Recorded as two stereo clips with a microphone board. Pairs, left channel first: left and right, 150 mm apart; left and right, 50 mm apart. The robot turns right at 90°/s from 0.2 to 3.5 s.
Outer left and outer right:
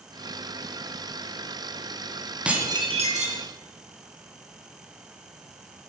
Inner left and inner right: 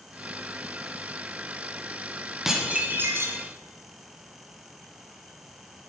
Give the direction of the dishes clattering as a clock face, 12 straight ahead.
6 o'clock.